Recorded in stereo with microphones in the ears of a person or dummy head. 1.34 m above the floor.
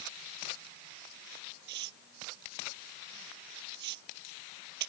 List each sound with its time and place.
1.7 s tearing paper: 60° right (ahead or behind)